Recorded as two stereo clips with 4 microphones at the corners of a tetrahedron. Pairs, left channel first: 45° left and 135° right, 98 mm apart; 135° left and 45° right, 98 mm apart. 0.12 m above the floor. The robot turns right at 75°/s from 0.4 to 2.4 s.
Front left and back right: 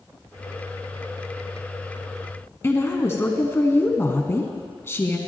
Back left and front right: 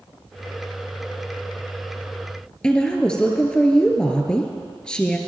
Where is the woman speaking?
65° left, 1.2 m.